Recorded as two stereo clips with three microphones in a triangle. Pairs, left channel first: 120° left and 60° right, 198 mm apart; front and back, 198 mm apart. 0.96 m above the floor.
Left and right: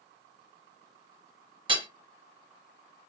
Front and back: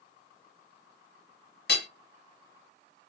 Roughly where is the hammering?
Ahead.